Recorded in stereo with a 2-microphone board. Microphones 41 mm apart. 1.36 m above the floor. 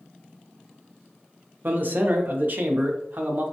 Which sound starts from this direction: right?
A man speaking, at 1.6 s.